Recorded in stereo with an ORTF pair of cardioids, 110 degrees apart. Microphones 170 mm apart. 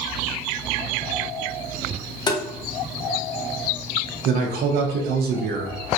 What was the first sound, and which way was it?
Tapping, 25° left.